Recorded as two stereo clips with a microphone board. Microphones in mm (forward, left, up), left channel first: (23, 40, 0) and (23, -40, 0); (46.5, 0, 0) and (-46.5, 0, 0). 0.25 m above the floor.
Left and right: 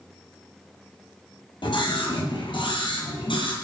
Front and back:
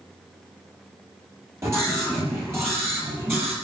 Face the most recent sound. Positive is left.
turn(degrees=115)